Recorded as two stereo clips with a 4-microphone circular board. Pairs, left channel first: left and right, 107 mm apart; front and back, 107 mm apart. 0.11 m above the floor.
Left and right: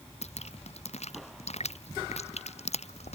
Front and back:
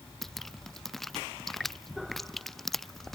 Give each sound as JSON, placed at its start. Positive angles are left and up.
{"t": 0.2, "sound": "dripping", "azimuth_deg": 85}